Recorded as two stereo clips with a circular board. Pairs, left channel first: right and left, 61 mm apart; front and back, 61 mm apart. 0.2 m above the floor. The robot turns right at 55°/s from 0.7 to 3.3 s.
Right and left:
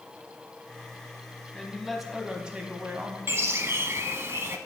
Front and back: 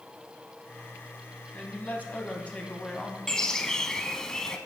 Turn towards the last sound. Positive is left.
turn(degrees=75)